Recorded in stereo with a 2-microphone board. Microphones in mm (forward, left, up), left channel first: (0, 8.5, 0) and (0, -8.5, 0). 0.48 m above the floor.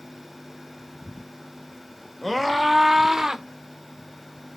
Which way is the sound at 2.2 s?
Centre (ahead or behind).